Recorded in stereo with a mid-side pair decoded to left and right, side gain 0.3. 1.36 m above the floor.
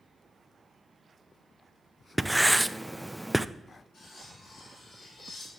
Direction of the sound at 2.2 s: 10° right.